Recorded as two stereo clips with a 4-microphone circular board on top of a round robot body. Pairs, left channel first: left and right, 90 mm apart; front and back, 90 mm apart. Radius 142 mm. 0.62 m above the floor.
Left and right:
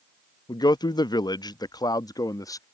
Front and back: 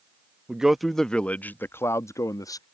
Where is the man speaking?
105° left; by 2.6 s 45° left.